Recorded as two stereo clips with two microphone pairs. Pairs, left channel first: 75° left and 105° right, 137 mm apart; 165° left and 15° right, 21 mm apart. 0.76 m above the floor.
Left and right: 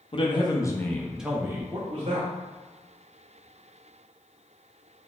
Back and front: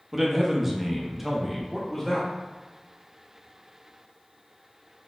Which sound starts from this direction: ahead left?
A man speaking, at 0.1 s.